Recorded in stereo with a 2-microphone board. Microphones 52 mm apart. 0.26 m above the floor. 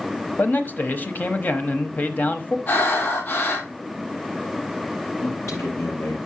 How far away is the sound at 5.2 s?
About 6 m.